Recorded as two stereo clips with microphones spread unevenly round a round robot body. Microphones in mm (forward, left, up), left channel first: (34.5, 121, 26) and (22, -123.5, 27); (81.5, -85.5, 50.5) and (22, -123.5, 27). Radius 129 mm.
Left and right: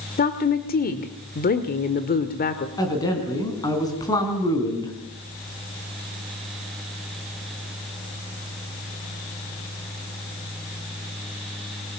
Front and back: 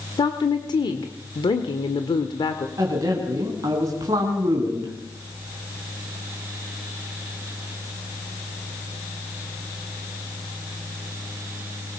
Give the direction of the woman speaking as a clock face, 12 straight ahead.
10 o'clock.